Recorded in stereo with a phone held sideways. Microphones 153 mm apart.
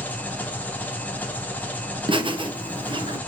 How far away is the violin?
I don't hear a violin.